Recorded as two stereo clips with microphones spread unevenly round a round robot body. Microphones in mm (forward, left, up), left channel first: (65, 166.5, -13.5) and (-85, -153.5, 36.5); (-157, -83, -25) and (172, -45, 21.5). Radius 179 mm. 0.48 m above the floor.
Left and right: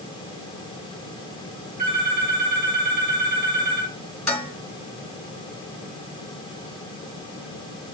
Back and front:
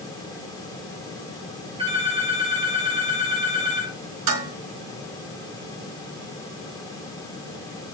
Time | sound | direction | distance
1.8 | a phone ringing | 70° right | 6.5 m
4.3 | dishes clattering | 20° right | 3.5 m